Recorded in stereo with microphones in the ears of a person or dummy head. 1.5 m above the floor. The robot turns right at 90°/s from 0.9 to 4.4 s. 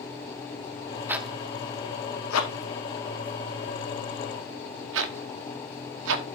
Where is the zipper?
15° right (ahead or behind), 1.0 m; by 6.2 s 75° right (ahead or behind), 1.0 m.